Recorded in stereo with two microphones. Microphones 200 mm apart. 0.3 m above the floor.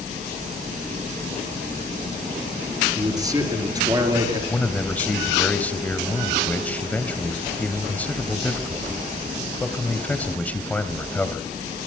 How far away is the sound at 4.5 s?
About 1.7 m.